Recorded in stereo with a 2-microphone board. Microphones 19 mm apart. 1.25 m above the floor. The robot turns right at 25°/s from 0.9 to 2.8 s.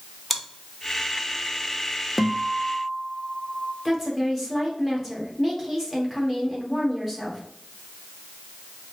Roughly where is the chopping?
No chopping in this recording.